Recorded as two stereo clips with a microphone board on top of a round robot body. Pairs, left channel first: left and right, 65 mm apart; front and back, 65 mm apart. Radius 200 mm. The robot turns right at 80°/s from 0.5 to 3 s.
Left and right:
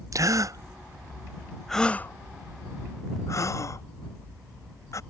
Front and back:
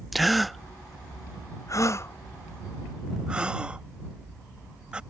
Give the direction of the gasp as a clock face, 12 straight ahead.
3 o'clock.